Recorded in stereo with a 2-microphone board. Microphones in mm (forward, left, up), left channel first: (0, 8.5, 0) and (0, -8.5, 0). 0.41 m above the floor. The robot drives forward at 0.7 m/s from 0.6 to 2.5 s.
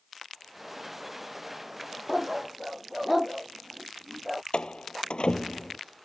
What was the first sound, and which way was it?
A dog barking, 5° right (ahead or behind).